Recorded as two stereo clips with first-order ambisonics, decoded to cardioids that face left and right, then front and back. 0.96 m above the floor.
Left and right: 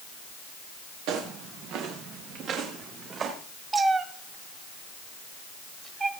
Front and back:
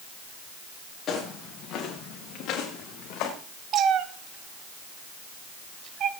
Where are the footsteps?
65° right, 5 m; by 3.3 s 30° right, 5 m.